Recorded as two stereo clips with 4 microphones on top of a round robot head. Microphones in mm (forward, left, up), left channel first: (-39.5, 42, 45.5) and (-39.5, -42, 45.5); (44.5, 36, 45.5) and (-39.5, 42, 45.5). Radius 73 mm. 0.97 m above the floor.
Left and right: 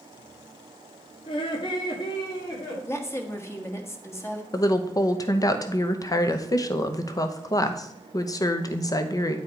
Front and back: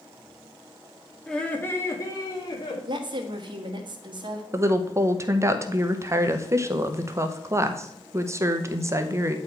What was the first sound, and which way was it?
Laughter, 80° left.